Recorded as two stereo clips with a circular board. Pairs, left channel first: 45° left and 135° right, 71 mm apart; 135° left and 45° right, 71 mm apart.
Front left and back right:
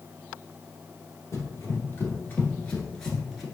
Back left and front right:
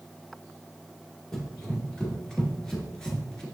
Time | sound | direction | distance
1.3 | running footsteps | 60° left | 1.6 m